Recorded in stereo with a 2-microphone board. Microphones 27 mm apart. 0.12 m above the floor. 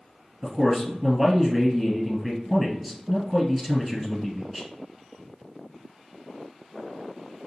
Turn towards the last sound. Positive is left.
turn(degrees=-10)  # may be behind; listen again after turning